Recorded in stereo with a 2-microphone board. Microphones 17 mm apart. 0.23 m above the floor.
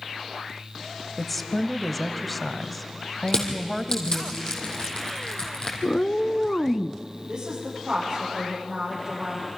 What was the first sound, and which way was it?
A woman speaking, 5° left (ahead or behind).